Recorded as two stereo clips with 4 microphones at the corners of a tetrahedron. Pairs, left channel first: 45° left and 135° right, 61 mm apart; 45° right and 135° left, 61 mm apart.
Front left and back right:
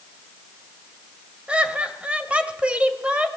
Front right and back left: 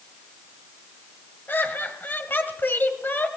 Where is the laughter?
75° right, 1.8 m.